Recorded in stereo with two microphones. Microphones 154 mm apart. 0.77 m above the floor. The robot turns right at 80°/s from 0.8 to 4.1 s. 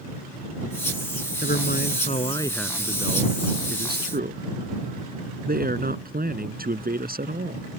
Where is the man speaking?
80° left; by 7.7 s 65° right.